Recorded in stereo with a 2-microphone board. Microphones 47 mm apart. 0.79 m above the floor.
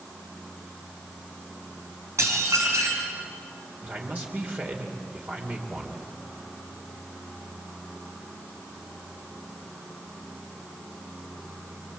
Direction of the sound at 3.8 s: 35° right (ahead or behind).